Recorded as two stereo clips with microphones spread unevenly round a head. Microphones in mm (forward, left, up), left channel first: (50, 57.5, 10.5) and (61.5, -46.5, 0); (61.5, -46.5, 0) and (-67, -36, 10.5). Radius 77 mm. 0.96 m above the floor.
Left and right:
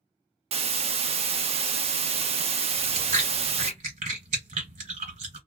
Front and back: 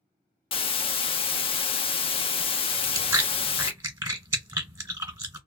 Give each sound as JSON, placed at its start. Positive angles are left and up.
{"t": 0.5, "sound": "a hiss", "azimuth_deg": -55, "distance_m": 0.6}
{"t": 2.7, "sound": "chewing", "azimuth_deg": -125, "distance_m": 1.3}